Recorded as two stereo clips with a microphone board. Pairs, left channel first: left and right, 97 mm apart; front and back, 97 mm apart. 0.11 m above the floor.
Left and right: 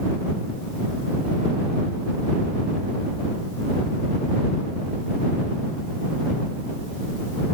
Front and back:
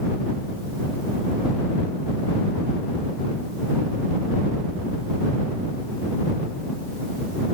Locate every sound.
Only background noise.